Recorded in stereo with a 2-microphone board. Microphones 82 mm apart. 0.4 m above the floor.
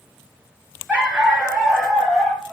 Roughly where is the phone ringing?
No phone ringing in this recording.